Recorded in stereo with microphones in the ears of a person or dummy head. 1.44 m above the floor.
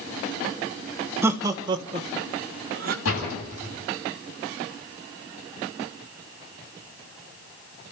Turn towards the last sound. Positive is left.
turn(degrees=90)